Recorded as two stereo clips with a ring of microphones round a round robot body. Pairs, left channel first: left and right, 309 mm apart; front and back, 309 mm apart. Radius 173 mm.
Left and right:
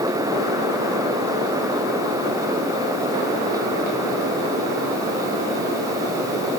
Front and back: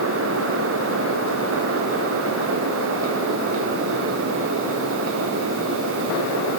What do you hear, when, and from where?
Only background noise.